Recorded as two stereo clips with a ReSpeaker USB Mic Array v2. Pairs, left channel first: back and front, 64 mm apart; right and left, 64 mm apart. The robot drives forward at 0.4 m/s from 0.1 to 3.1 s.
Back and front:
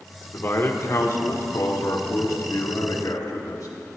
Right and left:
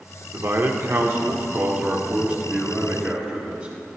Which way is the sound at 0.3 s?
125° left.